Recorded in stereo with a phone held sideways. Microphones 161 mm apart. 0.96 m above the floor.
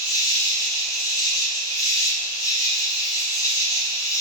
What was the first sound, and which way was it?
An insect, 25° left (ahead or behind).